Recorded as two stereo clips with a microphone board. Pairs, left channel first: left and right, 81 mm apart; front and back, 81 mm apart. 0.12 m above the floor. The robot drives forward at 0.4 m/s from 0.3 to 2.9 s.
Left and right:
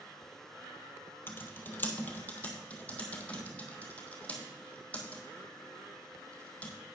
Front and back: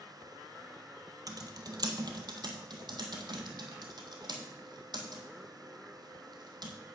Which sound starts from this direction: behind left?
Typing on a keyboard, at 1.3 s.